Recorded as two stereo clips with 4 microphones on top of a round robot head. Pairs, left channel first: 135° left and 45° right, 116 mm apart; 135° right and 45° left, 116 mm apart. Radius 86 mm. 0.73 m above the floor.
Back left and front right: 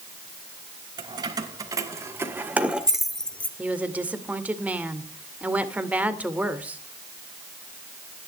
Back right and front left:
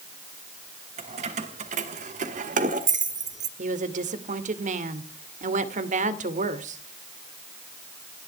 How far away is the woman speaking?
About 2 m.